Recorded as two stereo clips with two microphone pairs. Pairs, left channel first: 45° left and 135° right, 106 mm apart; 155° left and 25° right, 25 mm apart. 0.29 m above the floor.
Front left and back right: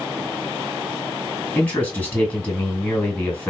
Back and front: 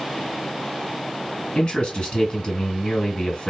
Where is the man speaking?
115° left, 2.5 m.